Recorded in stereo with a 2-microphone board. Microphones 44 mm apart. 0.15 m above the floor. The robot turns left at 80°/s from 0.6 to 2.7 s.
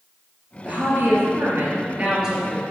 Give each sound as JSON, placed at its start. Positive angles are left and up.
{"t": 0.7, "sound": "a woman speaking", "azimuth_deg": -40, "distance_m": 2.5}